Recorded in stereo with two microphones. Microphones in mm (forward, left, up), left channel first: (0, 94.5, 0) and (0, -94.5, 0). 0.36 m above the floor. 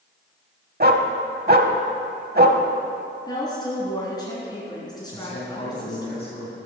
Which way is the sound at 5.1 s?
50° left (ahead or behind).